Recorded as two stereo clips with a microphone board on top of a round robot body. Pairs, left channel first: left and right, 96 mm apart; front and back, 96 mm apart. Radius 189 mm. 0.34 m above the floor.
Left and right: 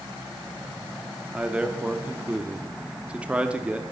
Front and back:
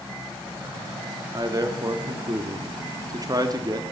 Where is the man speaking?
165° right, 1.1 m.